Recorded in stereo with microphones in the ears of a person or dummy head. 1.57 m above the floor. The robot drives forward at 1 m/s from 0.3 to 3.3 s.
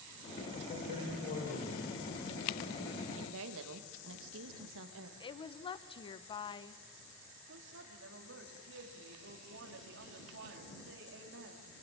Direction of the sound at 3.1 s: 70° right (ahead or behind).